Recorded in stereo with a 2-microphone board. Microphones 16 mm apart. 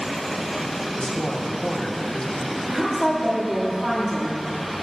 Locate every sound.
1.0 s a woman speaking: 70° left (ahead or behind), 1.2 m
2.7 s a woman speaking: 35° right (ahead or behind), 2.5 m